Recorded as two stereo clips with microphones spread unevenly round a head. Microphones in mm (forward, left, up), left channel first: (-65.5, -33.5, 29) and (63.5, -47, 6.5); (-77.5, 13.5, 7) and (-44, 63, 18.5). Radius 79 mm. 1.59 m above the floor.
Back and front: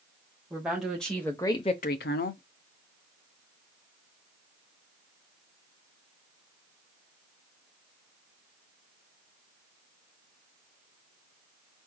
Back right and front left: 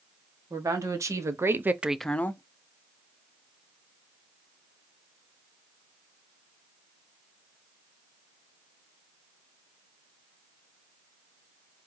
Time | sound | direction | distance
0.5 | a woman speaking | 80° left | 1.7 m